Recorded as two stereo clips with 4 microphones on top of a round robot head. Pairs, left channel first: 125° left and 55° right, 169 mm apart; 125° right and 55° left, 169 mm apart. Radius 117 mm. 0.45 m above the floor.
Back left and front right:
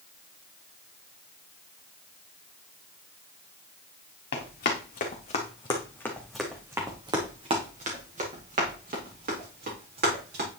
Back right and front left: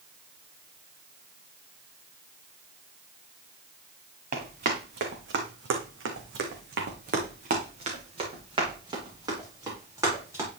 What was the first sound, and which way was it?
Running footsteps, 95° left.